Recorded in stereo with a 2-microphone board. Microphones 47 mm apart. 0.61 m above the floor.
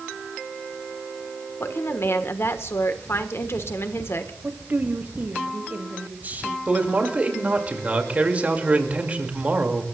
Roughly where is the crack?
No crack in this recording.